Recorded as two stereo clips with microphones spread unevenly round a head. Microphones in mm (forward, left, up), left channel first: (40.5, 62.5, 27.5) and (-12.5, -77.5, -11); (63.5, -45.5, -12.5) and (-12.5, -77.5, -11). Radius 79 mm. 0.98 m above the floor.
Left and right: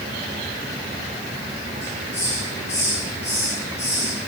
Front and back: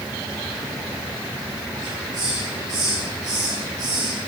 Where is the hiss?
145° left, 8.5 m.